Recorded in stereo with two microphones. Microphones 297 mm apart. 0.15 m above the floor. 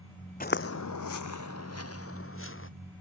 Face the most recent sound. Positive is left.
turn(degrees=45)  # may be behind; listen again after turning